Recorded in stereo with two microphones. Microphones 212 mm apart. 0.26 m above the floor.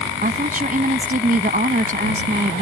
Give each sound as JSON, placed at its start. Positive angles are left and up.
{"t": 0.2, "sound": "a woman speaking", "side_deg": -45}